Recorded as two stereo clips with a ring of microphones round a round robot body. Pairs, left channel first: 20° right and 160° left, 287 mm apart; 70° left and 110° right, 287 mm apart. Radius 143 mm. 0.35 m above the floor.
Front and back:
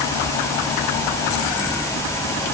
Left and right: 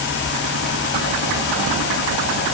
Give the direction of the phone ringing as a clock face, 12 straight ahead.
No phone ringing in this recording.